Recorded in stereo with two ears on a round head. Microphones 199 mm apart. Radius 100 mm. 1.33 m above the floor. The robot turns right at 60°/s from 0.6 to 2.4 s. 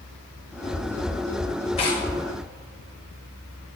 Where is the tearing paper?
30° left (ahead or behind), 1.3 m; by 2.1 s 10° left (ahead or behind), 1.3 m.